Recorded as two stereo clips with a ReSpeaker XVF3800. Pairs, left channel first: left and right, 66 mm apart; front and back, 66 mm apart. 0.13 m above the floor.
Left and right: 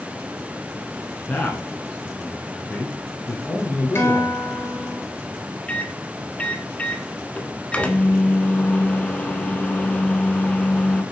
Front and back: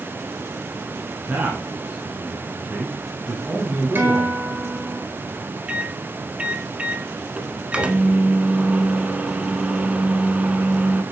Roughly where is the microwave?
Behind left.